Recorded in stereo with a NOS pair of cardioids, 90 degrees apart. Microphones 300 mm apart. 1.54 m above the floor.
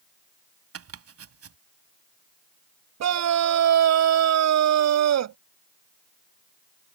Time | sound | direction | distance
0.7 | chopping | 50° right | ?
3.0 | a scream | 65° right | ?